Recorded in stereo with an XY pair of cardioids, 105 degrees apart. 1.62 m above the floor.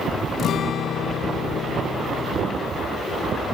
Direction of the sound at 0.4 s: 60° left.